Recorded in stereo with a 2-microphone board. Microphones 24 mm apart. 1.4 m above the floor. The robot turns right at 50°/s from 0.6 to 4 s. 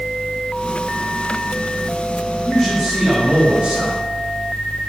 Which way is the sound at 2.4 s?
165° left.